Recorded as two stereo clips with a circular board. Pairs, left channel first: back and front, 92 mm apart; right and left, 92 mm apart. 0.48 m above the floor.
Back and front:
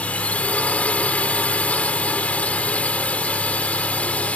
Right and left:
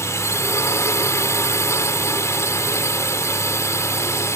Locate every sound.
0.0 s a drone: 115° right